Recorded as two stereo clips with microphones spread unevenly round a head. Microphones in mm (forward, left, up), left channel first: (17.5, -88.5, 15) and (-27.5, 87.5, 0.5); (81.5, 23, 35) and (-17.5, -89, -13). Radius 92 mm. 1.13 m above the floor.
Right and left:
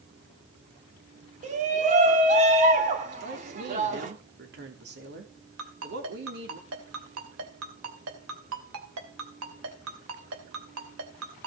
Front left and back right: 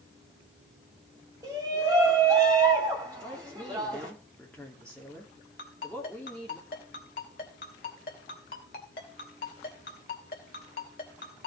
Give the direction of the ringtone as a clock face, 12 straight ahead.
9 o'clock.